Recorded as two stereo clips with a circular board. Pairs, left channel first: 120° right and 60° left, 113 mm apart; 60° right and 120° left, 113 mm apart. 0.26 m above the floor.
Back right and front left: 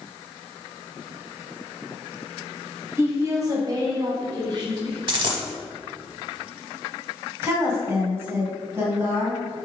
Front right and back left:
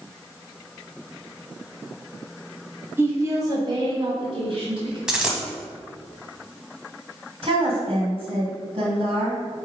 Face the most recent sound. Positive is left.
turn(degrees=120)